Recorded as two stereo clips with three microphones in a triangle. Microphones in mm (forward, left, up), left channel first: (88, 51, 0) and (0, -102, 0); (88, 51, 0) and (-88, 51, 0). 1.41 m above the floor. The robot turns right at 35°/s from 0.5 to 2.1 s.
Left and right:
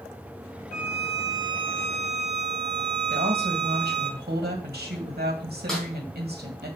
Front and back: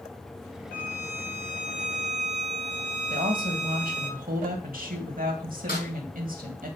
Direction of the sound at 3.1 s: 145° right.